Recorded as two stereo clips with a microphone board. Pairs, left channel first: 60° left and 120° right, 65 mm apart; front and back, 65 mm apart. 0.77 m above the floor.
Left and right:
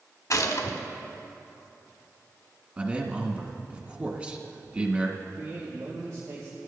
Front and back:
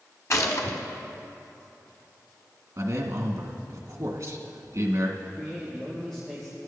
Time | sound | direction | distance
0.3 | a gunshot | 35° left | 1.2 m
2.8 | a man speaking | 175° right | 1.6 m
5.2 | a man speaking | 85° right | 2.5 m